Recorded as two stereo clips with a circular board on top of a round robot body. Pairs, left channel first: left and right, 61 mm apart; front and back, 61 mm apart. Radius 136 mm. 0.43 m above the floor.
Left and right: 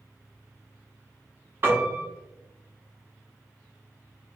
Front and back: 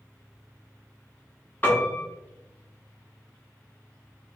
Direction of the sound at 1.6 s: 50° right.